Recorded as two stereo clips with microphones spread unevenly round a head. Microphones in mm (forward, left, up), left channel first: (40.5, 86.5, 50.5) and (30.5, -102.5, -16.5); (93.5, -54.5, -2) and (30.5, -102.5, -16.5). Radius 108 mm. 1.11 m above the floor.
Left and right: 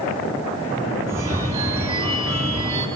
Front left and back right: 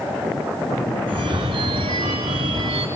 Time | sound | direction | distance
1.1 | a phone ringing | 170° right | 1.9 m